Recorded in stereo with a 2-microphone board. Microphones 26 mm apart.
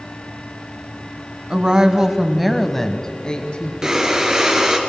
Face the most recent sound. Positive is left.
turn(degrees=-25)  # may be behind; listen again after turning